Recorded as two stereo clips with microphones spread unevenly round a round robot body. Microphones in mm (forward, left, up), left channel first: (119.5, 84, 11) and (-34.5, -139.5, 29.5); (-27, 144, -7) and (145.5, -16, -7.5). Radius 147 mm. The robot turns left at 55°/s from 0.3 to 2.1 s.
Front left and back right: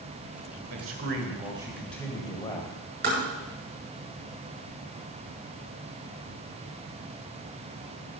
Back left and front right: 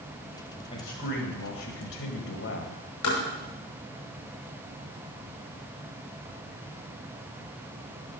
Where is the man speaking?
155° right, 2 m; by 2.8 s 130° left, 2 m.